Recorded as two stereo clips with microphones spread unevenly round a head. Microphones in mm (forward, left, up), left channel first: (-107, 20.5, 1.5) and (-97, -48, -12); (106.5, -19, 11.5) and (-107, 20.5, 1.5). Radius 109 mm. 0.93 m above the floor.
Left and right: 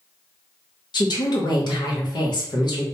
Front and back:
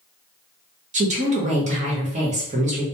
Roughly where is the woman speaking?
Behind left.